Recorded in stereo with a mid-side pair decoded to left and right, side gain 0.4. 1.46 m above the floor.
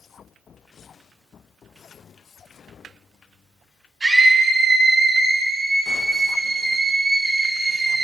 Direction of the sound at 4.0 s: 35° right.